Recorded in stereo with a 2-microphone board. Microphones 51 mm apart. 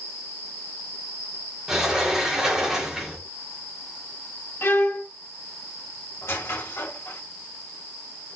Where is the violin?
45° left (ahead or behind), 1.1 m.